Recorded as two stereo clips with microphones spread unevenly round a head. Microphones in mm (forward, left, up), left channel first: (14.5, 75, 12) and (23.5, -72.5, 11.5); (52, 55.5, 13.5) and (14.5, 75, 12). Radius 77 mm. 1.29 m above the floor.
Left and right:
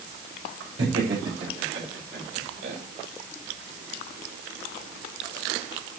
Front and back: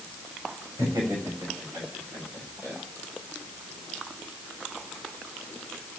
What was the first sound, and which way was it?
Laughter, 150° right.